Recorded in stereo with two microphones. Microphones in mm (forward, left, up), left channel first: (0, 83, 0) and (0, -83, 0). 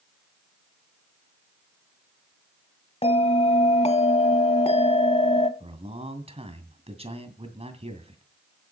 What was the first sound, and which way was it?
A bell, 40° left (ahead or behind).